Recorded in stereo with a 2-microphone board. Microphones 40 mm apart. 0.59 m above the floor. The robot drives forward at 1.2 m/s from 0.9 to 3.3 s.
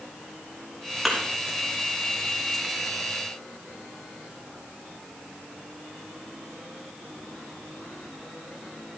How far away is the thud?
About 3.5 m.